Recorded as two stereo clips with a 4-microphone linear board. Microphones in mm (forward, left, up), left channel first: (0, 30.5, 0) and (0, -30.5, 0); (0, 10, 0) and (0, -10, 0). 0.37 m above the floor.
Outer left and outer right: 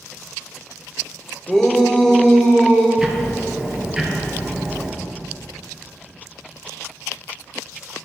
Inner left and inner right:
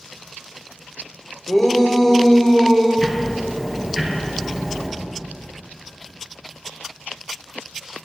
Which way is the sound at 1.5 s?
10° left (ahead or behind).